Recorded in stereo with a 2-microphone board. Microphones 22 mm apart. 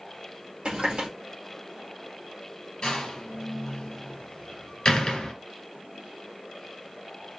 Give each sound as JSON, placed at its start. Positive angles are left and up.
{"t": 0.7, "sound": "a running tap", "side_deg": -55, "distance_m": 2.0}
{"t": 2.8, "sound": "a door slam", "side_deg": 50, "distance_m": 2.0}